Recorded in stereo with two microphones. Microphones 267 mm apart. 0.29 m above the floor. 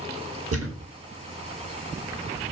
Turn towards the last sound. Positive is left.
turn(degrees=-60)  # may be behind; listen again after turning